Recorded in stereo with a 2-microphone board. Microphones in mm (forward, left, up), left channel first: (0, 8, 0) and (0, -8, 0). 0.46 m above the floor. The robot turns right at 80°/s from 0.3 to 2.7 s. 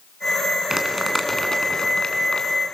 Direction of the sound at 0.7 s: 30° right (ahead or behind).